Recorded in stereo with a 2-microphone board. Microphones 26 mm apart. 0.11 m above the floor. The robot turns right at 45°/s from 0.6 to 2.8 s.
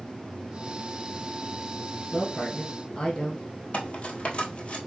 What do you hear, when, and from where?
2.1 s a woman speaking: 35° left, 2 m; by 3.4 s 65° left, 2 m
3.7 s cutlery clinking: 50° left (ahead or behind), 1.5 m